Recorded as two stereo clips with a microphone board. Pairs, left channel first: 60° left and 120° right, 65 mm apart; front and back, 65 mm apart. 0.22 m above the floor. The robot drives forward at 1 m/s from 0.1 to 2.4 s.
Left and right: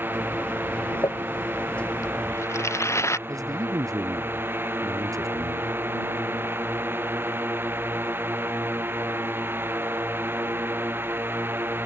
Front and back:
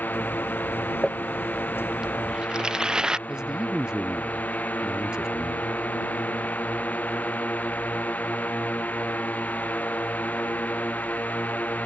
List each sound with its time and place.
0.0 s a drone: 60° right; by 11.9 s 65° right
1.0 s crumpling: 85° left; by 3.2 s 105° left
3.3 s a man speaking: 100° right